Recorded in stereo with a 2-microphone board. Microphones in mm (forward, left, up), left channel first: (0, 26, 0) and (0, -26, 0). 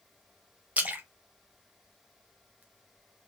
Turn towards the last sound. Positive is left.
turn(degrees=-30)  # may be behind; listen again after turning